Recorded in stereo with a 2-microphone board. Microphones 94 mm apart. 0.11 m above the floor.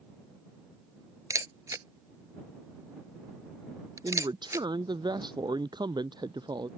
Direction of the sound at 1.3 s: 35° right (ahead or behind).